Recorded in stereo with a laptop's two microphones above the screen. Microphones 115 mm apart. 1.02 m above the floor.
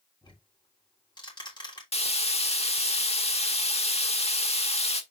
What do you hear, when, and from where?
0.2 s ticking: 40° left (ahead or behind), 3.5 m
1.9 s frying: 65° left (ahead or behind), 1.5 m